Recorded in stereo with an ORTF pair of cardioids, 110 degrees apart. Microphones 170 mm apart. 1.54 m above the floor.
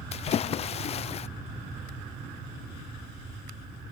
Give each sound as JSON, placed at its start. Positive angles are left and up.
{"t": 0.1, "sound": "a splash", "azimuth_deg": 40, "distance_m": 0.5}